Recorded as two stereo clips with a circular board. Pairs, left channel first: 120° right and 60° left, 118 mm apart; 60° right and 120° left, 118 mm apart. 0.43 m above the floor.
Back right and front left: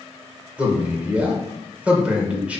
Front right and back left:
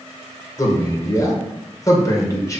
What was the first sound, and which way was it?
A man speaking, 15° right.